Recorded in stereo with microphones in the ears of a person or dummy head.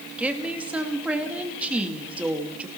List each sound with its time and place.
0.2 s a woman speaking: 10° right (ahead or behind), 2.5 m